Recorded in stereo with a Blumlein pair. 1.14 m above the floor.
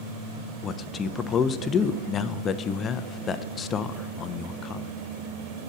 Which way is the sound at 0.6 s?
25° left.